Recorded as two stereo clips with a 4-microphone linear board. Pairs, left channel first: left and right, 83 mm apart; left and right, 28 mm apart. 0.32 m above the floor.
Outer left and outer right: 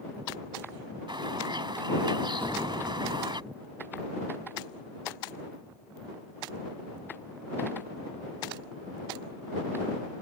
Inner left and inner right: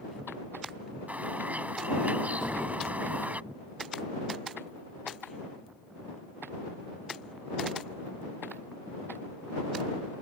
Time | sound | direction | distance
1.1 | a bird | 65° right (ahead or behind) | ?
2.4 | an explosion | 20° left (ahead or behind) | ?